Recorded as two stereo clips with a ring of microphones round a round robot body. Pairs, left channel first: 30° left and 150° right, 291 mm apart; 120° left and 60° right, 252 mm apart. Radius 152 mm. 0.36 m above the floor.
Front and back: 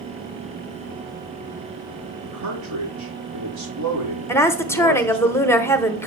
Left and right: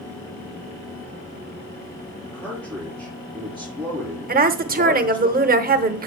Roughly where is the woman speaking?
Ahead right.